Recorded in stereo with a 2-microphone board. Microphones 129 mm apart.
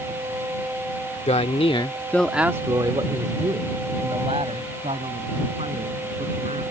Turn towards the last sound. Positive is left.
turn(degrees=-55)  # may be behind; listen again after turning